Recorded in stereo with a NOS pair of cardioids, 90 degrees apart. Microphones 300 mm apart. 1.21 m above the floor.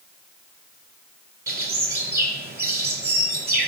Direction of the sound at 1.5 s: 30° right.